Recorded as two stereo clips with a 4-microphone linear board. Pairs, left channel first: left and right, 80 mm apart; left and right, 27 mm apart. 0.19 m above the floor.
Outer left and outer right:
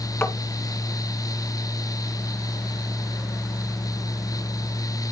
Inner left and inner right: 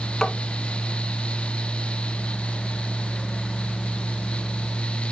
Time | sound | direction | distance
0.2 | tapping | 30° left (ahead or behind) | 1.5 m